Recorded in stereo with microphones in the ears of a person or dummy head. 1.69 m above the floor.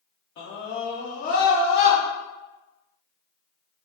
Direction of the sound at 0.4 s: 50° left (ahead or behind).